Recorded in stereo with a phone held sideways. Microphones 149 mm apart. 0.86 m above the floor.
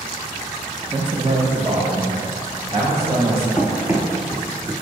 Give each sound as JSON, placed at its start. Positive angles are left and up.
{"t": 0.9, "sound": "a man speaking", "side_deg": -30, "distance_m": 0.8}
{"t": 3.6, "sound": "running footsteps", "side_deg": -5, "distance_m": 0.9}